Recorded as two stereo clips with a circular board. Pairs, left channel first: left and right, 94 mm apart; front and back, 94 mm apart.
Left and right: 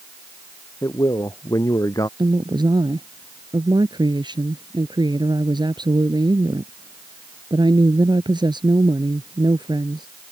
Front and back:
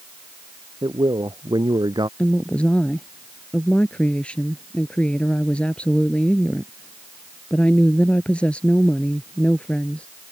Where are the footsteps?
I don't hear footsteps.